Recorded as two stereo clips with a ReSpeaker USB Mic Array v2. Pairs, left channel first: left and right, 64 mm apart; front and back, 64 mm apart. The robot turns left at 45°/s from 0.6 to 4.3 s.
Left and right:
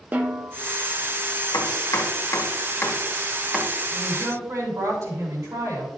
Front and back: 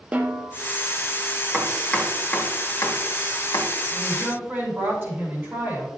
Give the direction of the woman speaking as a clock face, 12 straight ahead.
4 o'clock.